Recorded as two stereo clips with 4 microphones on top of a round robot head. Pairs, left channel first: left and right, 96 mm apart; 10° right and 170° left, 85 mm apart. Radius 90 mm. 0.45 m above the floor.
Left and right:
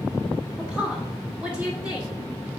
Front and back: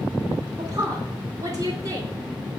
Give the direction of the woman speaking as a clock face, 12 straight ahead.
5 o'clock.